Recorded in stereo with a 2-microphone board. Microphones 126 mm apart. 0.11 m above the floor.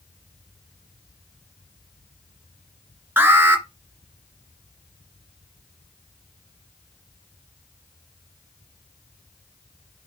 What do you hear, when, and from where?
3.2 s an alarm: 15° right (ahead or behind), 1.9 m